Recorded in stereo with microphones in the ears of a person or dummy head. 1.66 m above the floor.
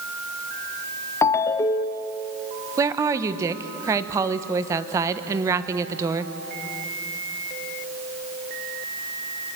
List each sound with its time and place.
1.2 s a ringtone: 15° left (ahead or behind), 0.5 m
2.8 s a woman speaking: 15° right (ahead or behind), 1.3 m